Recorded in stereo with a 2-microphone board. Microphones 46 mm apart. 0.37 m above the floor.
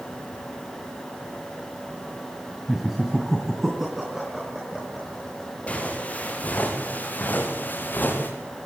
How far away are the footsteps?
About 7 m.